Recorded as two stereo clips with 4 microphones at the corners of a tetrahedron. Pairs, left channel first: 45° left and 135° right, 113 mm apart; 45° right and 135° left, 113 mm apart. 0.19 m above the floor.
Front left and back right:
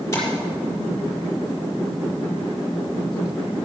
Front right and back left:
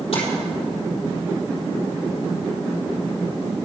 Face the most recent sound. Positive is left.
turn(degrees=-20)